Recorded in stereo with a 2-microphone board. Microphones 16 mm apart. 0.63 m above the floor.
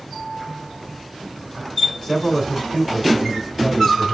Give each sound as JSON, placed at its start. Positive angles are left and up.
{"t": 2.0, "sound": "a man speaking", "side_deg": 30, "distance_m": 2.0}